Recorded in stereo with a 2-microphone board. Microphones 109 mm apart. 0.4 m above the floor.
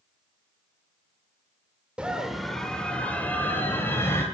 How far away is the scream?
About 1.2 m.